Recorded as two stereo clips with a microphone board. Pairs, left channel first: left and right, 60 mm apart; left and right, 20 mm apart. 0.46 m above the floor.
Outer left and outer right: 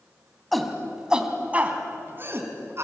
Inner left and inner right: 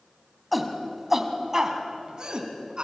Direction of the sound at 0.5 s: Centre (ahead or behind).